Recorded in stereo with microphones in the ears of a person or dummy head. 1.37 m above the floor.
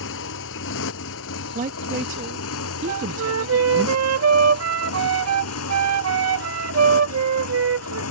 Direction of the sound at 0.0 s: 75° left (ahead or behind).